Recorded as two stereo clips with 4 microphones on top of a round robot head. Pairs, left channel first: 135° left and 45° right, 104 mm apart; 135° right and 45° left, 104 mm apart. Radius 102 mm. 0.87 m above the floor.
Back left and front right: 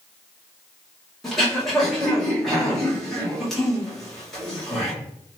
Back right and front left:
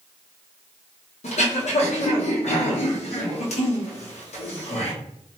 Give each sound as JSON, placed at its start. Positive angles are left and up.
{"t": 1.2, "sound": "throat clearing", "azimuth_deg": -135, "distance_m": 1.4}